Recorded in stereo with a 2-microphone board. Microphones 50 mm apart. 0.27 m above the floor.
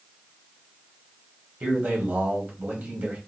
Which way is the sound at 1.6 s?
35° right (ahead or behind).